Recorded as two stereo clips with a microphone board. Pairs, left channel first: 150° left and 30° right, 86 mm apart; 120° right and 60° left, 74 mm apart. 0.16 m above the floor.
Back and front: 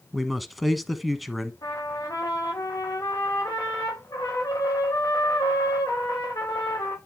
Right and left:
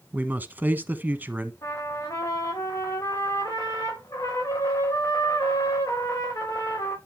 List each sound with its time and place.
0.1 s a man speaking: 60° left, 1.1 m
1.6 s a trumpet: 160° right, 4.5 m